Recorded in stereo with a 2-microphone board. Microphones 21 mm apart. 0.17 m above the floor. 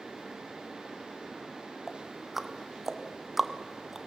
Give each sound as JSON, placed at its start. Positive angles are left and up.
{"t": 1.9, "sound": "ticking", "side_deg": -15, "distance_m": 1.0}